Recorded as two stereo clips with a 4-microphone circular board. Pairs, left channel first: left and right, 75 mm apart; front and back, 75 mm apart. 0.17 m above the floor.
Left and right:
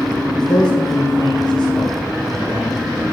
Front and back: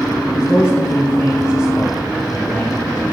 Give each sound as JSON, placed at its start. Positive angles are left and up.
{"t": 0.3, "sound": "a man speaking", "azimuth_deg": 75, "distance_m": 3.0}